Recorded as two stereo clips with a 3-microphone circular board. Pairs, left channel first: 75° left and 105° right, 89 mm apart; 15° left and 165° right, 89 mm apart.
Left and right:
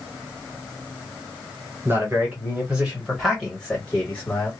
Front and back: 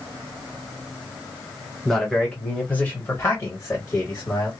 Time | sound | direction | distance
1.9 | a man speaking | 70° right | 1.6 m